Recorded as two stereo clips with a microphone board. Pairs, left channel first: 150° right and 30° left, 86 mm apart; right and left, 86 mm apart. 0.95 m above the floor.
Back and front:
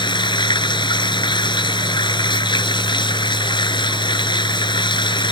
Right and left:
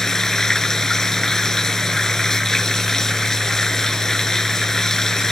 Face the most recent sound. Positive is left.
turn(degrees=-175)